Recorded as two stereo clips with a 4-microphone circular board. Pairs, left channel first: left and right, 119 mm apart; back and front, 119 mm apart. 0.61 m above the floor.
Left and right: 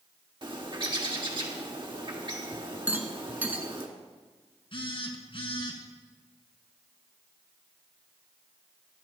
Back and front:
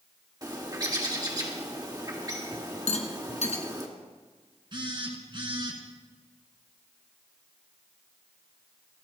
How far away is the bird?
About 1.7 m.